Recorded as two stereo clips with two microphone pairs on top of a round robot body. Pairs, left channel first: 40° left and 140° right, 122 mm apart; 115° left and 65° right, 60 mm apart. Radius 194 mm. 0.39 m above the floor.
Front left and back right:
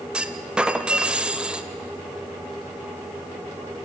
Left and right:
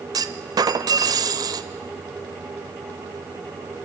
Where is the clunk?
55° right, 0.6 m.